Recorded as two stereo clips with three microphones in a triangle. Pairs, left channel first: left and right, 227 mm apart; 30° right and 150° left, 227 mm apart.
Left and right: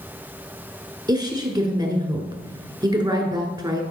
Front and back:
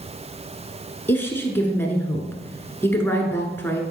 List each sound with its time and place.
1.1 s a woman speaking: 85° right, 1.1 m